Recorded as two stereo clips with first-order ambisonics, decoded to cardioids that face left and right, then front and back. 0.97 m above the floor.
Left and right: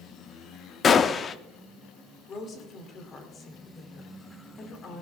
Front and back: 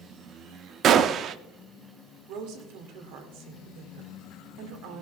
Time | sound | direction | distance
0.8 | a gunshot | 145° left | 0.5 m
2.3 | a woman speaking | 155° left | 2 m